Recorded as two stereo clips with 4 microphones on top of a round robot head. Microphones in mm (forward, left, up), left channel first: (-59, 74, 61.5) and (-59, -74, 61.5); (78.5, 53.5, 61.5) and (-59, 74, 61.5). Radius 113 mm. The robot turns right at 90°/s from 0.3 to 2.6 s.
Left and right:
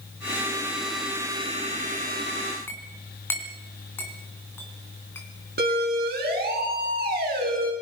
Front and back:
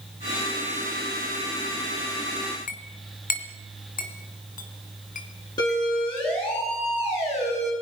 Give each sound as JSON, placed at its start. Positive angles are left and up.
{"t": 2.7, "sound": "a clink", "azimuth_deg": 10, "distance_m": 3.0}
{"t": 5.6, "sound": "a siren", "azimuth_deg": -75, "distance_m": 7.0}